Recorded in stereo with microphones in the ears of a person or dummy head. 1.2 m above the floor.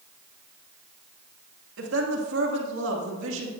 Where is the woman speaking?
80° right, 2 m.